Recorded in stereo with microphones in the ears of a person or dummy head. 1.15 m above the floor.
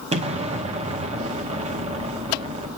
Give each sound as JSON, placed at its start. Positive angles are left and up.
{"t": 0.1, "sound": "an explosion", "side_deg": -30, "distance_m": 0.8}